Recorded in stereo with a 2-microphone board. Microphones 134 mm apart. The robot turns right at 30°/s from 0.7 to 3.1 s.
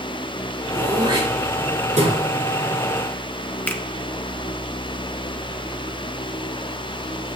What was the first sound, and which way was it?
Throat clearing, 30° right (ahead or behind).